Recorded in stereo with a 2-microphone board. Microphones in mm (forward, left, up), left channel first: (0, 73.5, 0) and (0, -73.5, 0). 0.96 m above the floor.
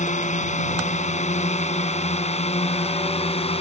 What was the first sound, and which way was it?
A drone, 55° left (ahead or behind).